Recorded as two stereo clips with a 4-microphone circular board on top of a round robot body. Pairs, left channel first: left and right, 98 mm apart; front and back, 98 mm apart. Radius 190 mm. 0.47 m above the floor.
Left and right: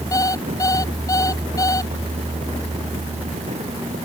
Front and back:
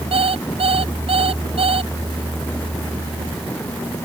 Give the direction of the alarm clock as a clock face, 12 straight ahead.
7 o'clock.